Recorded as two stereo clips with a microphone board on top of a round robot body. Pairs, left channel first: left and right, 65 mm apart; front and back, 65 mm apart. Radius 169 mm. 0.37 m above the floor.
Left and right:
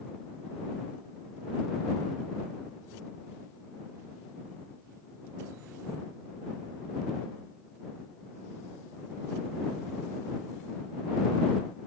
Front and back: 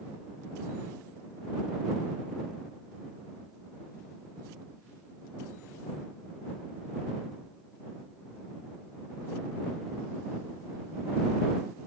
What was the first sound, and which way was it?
Only background noise.